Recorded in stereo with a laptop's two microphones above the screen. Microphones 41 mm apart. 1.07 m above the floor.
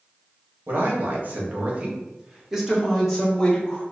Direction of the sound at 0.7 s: 60° right (ahead or behind).